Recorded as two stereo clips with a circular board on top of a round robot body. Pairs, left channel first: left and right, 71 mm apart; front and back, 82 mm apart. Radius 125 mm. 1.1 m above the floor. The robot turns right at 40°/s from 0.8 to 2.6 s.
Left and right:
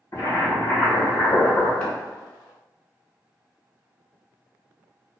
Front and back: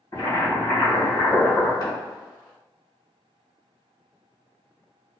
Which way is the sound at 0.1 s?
50° left.